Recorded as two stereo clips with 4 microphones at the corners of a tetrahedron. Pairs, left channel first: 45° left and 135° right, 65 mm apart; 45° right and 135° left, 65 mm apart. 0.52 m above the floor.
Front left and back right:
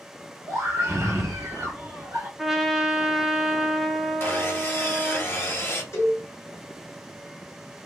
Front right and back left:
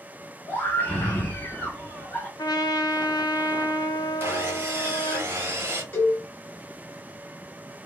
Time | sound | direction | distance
0.5 | a scream | 90° right | 1.1 m
2.4 | a trumpet | 50° right | 0.7 m
4.2 | sawing | 90° left | 1.0 m
5.9 | a cowbell | 5° left | 1.7 m